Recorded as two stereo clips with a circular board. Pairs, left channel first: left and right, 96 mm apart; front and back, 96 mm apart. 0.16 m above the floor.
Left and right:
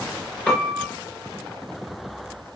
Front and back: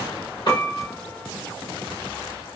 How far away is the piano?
About 1.2 m.